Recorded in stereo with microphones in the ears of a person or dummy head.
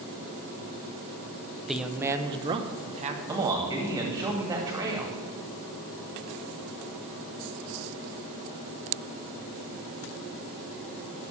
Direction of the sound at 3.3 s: 20° right (ahead or behind).